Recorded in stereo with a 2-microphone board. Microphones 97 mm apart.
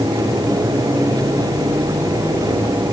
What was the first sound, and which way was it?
Only background noise.